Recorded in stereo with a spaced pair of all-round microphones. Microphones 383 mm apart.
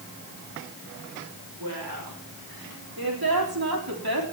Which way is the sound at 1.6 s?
65° right (ahead or behind).